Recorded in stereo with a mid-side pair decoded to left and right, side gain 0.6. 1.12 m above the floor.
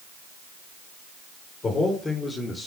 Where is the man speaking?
30° left, 4.5 m; by 2.7 s 20° left, 3 m.